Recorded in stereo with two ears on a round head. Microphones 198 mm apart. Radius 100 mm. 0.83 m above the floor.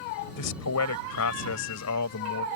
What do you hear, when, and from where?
0.4 s a man speaking: 80° left